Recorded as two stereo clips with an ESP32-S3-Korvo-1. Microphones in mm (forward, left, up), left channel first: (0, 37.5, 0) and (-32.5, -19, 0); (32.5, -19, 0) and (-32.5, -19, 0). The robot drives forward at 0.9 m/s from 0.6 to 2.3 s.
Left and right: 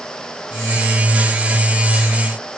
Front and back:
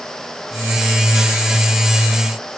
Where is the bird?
I don't hear a bird.